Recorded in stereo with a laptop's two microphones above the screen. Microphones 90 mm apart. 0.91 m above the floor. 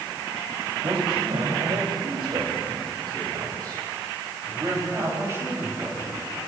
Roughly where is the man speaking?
Right.